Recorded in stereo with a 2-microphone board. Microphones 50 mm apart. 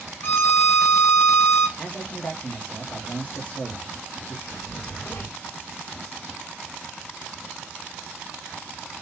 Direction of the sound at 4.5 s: 50° left (ahead or behind).